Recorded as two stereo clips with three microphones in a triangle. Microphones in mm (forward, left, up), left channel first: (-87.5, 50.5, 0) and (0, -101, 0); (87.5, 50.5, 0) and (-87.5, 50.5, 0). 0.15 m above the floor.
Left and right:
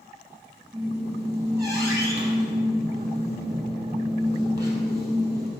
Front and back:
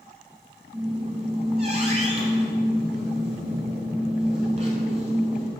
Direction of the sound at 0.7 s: 130° right.